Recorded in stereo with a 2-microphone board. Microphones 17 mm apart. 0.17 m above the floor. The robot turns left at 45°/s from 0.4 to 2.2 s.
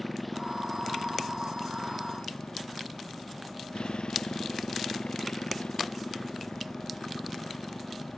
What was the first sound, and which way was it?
A motorcycle, 175° left.